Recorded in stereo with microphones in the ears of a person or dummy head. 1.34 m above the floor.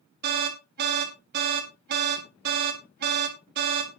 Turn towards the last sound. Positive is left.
turn(degrees=-45)  # may be behind; listen again after turning